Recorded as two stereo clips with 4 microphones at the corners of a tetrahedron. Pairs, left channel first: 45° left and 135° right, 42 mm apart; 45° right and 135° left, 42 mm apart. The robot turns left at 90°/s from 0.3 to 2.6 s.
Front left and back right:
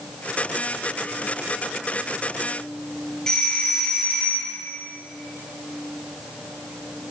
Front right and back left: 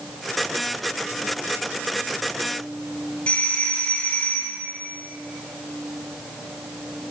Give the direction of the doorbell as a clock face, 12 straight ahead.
12 o'clock.